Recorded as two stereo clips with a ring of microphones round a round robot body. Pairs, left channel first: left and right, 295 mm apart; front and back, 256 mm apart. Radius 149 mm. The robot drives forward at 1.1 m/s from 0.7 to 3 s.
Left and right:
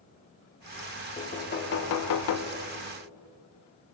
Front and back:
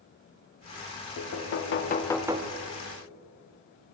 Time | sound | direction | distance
1.2 | knocking | 20° left | 1.3 m